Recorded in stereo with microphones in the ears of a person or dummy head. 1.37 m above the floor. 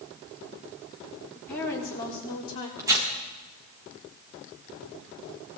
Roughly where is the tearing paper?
Centre.